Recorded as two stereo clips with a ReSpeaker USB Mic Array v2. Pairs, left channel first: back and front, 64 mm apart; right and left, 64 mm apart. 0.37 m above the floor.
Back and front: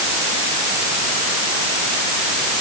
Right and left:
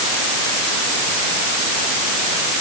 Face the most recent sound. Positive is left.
No sound to turn to.